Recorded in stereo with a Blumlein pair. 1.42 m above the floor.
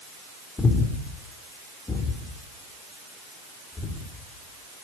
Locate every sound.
0.6 s breathing: 10° left, 3.5 m